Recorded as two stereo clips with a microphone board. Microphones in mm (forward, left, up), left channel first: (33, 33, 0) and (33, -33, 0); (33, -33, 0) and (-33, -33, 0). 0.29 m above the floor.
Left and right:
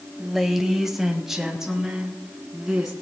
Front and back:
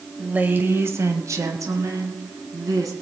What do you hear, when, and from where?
0.2 s a woman speaking: straight behind, 1.1 m; by 2.9 s 170° right, 3 m